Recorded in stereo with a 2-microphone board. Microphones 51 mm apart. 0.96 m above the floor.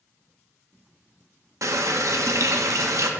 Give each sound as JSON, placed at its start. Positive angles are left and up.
{"t": 1.6, "sound": "a running tap", "side_deg": -70, "distance_m": 0.5}